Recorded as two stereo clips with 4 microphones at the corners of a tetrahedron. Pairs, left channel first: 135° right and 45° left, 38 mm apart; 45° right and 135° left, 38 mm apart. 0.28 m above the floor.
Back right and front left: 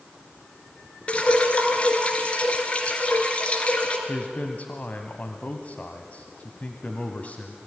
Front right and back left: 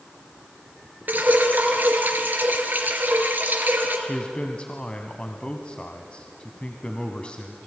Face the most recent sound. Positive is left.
turn(degrees=-100)